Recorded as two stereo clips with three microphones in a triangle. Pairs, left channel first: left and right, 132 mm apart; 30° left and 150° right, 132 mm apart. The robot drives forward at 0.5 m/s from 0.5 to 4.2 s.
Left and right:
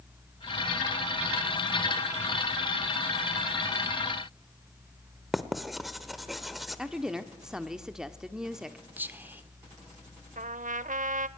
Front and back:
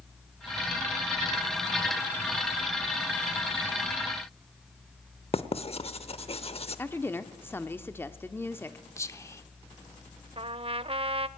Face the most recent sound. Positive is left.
turn(degrees=-105)